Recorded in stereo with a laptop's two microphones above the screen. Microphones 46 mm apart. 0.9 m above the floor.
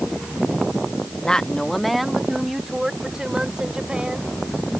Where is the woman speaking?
20° left (ahead or behind); by 4.3 s 20° right (ahead or behind).